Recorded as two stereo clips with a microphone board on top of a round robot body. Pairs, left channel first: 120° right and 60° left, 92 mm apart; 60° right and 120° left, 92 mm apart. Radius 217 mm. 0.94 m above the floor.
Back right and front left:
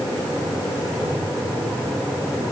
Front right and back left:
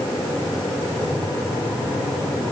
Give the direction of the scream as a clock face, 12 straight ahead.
I don't hear a scream.